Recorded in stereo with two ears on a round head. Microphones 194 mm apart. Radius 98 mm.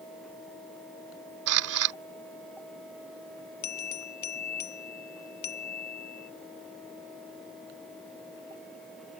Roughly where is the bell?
Left.